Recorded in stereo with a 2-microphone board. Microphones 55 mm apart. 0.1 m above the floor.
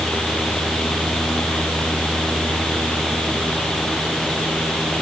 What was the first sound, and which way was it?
Only background noise.